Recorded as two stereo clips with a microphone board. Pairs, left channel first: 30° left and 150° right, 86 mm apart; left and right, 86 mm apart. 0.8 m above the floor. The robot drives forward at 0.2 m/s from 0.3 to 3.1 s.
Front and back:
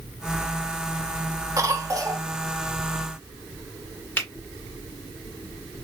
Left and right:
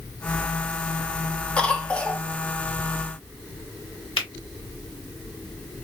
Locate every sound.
1.6 s a cough: 165° left, 1.0 m
4.2 s a finger snap: 100° left, 2.5 m